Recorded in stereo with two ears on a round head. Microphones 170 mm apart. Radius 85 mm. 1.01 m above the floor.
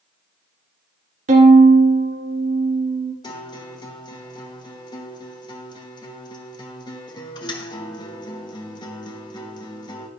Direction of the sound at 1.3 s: 40° right (ahead or behind).